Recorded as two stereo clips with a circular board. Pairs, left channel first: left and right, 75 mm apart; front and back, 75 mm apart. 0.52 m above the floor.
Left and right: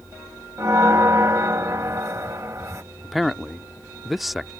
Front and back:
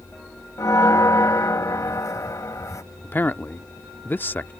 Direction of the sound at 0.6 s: 45° right.